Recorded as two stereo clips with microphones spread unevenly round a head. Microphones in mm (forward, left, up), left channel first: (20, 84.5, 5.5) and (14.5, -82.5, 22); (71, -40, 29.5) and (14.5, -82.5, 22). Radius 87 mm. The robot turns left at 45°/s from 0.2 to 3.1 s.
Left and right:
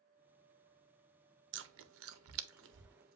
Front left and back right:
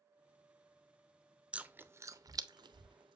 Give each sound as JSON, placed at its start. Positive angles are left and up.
{"t": 1.5, "sound": "chewing", "azimuth_deg": -65, "distance_m": 0.5}